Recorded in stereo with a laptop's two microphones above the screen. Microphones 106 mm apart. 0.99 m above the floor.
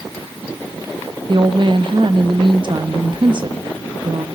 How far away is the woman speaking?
About 1.0 m.